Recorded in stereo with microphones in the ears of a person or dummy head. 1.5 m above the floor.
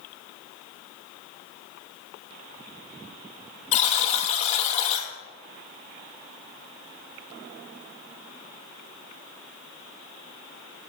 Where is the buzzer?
40° left (ahead or behind), 1.2 m.